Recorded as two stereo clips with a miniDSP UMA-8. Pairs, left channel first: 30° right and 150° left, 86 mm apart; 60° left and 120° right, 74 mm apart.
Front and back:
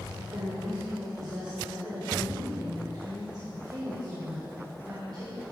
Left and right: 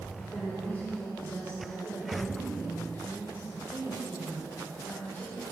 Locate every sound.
0.2 s a woman speaking: 115° left, 3.5 m